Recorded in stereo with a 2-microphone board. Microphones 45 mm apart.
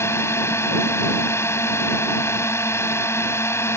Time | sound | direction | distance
0.0 | a drone | 75° left (ahead or behind) | ?